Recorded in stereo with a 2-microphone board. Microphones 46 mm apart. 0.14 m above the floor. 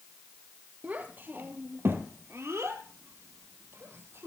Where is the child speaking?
35° right (ahead or behind), 2.5 m; by 4.3 s 60° right (ahead or behind), 3 m.